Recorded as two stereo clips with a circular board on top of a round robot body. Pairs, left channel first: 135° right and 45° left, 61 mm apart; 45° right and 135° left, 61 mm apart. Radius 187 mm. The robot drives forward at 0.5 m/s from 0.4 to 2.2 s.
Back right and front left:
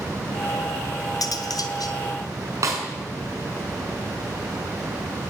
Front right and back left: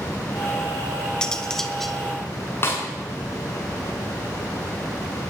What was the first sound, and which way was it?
Cutlery clinking, 120° right.